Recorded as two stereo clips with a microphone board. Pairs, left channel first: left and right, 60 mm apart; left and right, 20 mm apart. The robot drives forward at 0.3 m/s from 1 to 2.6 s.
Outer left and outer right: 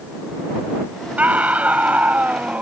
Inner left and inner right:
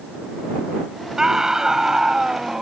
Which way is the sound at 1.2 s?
25° right (ahead or behind).